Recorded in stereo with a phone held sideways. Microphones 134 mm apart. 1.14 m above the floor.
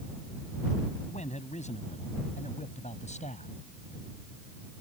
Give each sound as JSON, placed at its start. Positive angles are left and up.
{"t": 1.1, "sound": "a man speaking", "side_deg": 60}